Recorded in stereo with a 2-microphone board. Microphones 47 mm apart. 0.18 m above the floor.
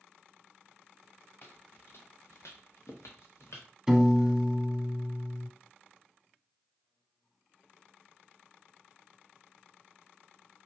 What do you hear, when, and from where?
1.4 s footsteps: 45° left (ahead or behind), 1.5 m; by 3.7 s 65° left (ahead or behind), 1.6 m
3.9 s a piano: 10° right (ahead or behind), 0.6 m